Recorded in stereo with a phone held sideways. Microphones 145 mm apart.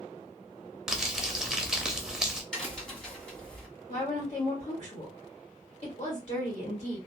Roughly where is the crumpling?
Centre.